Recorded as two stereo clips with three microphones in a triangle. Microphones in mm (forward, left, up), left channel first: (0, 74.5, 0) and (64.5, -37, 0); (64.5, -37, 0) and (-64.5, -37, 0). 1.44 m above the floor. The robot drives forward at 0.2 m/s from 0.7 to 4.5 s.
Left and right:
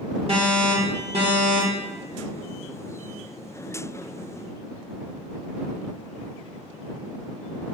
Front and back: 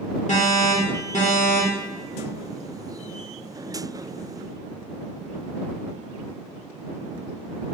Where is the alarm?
20° right, 1.0 m; by 1.9 s 30° right, 0.8 m.